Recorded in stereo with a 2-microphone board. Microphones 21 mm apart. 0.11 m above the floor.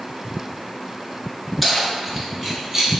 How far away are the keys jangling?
About 0.8 m.